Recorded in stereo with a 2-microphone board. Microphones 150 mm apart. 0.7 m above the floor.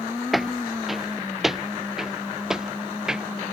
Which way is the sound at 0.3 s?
Centre (ahead or behind).